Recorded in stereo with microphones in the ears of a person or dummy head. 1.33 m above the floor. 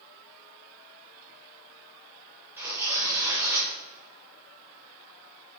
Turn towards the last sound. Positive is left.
turn(degrees=-15)  # may be behind; listen again after turning